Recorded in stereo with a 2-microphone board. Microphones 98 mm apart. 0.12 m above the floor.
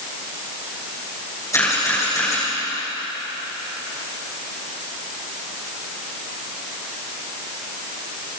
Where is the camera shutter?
30° left (ahead or behind), 6.5 m.